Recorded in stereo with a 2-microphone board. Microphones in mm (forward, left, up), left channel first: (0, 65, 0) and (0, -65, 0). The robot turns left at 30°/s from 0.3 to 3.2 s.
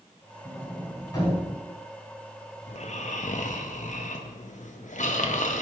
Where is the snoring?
60° left (ahead or behind), 0.7 m; by 5.6 s 75° left (ahead or behind), 0.7 m.